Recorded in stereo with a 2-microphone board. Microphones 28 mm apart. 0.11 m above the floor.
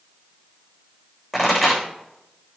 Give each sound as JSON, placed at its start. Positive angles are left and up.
{"t": 1.3, "sound": "a pop", "side_deg": -5, "distance_m": 7.0}